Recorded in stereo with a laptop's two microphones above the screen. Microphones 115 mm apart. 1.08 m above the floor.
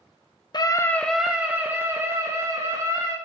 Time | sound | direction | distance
0.5 | a scream | 40° left (ahead or behind) | 0.5 m